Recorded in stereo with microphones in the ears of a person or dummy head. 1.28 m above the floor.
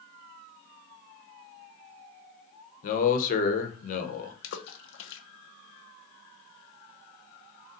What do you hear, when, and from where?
2.8 s a man speaking: 45° left (ahead or behind), 0.9 m
4.4 s a splash: 70° left (ahead or behind), 0.7 m